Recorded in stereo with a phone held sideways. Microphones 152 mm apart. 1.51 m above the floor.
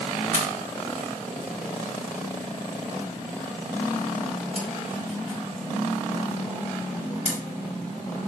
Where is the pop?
50° left (ahead or behind), 4.5 m.